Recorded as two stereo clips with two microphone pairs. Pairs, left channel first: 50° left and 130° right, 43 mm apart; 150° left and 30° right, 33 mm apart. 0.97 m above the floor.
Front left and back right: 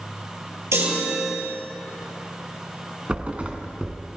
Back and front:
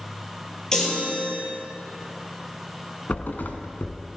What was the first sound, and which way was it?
A chime, 135° right.